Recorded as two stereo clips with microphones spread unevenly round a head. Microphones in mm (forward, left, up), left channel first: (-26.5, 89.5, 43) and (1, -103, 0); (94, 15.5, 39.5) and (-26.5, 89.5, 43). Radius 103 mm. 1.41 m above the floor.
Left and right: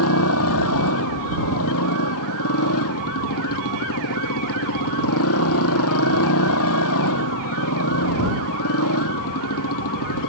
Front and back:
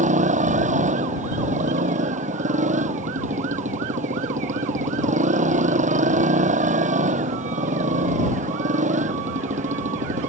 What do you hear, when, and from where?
0.0 s a motorcycle: 115° left